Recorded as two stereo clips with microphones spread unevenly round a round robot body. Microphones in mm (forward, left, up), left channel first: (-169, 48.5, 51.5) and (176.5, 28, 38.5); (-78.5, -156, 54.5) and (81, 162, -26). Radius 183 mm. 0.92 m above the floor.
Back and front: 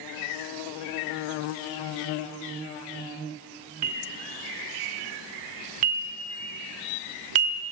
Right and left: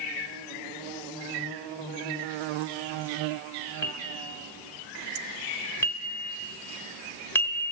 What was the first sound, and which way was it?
A bell, 40° right.